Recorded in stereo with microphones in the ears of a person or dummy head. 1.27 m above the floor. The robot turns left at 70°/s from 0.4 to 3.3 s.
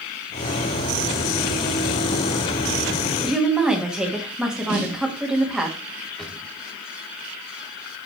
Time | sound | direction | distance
3.2 | a woman speaking | 10° right (ahead or behind) | 1.6 m
4.7 | a snare drum | 50° right (ahead or behind) | 1.9 m
6.2 | a drawer | 5° left (ahead or behind) | 1.4 m